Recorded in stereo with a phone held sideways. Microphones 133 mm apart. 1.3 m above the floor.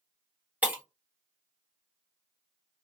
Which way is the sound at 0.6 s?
10° right (ahead or behind).